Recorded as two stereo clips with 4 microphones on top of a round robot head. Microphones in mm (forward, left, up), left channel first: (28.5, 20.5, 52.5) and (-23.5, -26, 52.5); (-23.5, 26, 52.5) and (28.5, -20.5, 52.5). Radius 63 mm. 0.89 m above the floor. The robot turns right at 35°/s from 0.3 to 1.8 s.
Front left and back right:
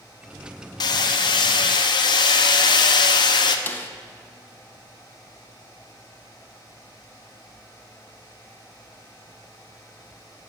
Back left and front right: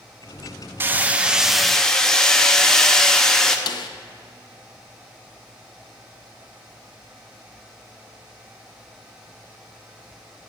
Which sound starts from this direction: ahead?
Hammering, at 0.8 s.